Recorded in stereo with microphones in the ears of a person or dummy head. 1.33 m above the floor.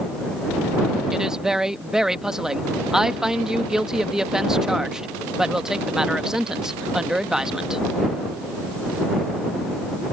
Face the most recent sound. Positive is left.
turn(degrees=-5)  # may be behind; listen again after turning